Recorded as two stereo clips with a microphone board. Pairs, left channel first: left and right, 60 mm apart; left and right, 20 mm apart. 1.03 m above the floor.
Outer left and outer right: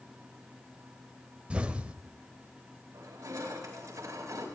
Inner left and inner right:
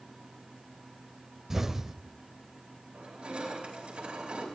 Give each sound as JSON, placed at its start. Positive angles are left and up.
{"t": 1.5, "sound": "an explosion", "side_deg": -15, "distance_m": 1.0}
{"t": 2.9, "sound": "crushing", "side_deg": -60, "distance_m": 4.5}